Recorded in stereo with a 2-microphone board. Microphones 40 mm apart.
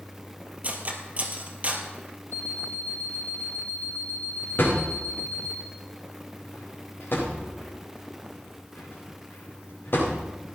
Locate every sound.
0.6 s cutlery clinking: 35° right (ahead or behind), 1.8 m
2.3 s an alarm clock: 40° left (ahead or behind), 1.0 m
4.6 s a thud: 55° left (ahead or behind), 7.5 m